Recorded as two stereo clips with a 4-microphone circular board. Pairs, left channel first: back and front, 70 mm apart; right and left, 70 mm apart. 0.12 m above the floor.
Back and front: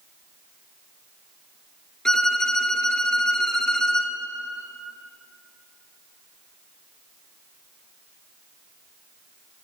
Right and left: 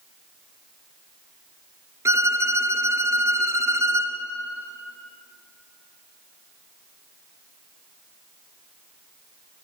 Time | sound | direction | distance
2.0 | a violin | 100° left | 1.8 m